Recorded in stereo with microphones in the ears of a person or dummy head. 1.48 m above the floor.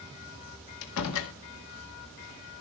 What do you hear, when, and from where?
0.8 s a door slam: 70° left (ahead or behind), 1.7 m